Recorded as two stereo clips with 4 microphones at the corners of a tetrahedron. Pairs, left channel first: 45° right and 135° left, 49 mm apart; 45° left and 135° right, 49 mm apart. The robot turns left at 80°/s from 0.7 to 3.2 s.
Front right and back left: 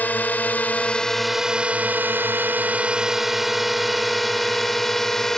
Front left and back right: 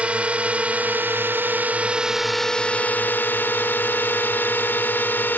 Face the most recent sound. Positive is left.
turn(degrees=35)